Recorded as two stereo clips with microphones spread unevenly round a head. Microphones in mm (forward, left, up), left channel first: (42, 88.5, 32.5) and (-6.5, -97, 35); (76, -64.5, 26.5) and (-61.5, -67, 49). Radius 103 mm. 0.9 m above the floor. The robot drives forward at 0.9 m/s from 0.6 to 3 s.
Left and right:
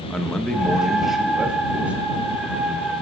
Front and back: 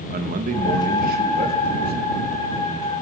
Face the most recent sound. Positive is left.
turn(degrees=175)